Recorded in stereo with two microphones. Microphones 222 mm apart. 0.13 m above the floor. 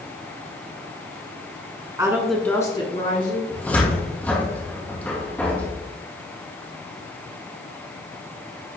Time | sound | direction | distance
2.0 | a woman speaking | 15° right (ahead or behind) | 1.4 m
3.5 | a cupboard door | 5° left (ahead or behind) | 2.0 m